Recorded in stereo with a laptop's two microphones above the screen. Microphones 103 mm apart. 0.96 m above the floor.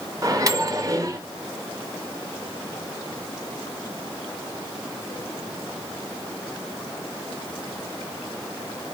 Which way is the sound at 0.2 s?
35° right (ahead or behind).